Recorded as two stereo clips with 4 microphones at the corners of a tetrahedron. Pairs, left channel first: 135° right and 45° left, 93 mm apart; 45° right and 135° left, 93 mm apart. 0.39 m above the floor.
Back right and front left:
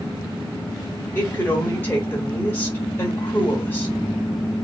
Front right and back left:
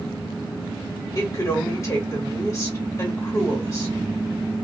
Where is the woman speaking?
80° right, 1.2 m.